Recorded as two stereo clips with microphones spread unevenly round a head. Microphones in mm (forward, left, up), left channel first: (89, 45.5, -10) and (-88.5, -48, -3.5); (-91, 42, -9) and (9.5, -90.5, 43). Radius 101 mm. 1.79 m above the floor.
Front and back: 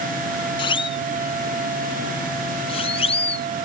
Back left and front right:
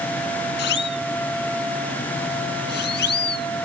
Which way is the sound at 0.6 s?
95° left.